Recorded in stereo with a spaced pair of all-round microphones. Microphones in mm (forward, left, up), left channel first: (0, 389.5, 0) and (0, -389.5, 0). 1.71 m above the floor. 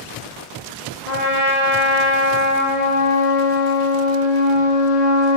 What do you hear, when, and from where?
1.1 s a trumpet: 65° left (ahead or behind), 1.4 m